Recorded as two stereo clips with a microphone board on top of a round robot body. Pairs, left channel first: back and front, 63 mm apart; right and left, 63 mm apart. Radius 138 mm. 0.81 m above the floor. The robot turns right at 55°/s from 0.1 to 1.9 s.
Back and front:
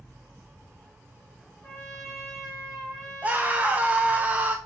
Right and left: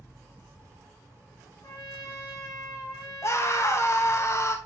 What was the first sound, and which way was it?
A trumpet, 115° right.